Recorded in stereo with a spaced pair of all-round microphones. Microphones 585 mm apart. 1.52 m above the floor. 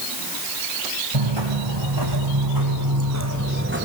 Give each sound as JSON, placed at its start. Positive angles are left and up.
{"t": 1.1, "sound": "footsteps", "side_deg": -50, "distance_m": 6.0}